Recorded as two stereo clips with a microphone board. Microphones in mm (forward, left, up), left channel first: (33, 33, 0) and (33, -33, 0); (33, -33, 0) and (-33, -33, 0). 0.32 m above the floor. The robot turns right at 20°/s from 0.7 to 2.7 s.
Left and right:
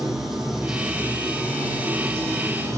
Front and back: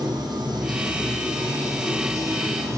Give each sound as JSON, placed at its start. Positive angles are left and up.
{"t": 0.0, "sound": "running water", "azimuth_deg": -175, "distance_m": 6.0}